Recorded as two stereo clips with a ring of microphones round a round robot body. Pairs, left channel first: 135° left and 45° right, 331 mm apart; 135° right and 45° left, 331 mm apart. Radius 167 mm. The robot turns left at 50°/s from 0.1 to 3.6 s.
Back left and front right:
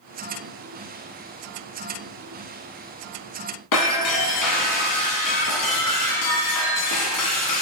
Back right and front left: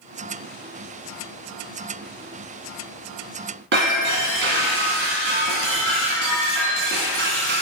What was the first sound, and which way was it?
Breaking glass, 100° left.